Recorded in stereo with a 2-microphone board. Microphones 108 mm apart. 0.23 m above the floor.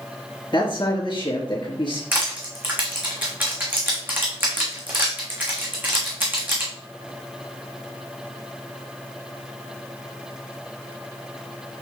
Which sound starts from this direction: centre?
Crushing, at 2.1 s.